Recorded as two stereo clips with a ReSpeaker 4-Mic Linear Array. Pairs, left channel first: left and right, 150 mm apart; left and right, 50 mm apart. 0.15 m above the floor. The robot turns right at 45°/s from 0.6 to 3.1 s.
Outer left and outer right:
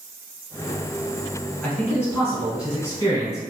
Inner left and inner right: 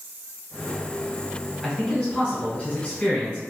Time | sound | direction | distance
1.6 | a man speaking | 10° left (ahead or behind) | 1.2 m